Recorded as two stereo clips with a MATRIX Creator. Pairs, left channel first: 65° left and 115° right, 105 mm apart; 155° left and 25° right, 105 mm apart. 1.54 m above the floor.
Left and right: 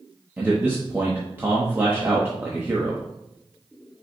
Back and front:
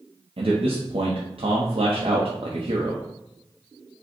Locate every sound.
0.4 s a man speaking: 40° right, 0.9 m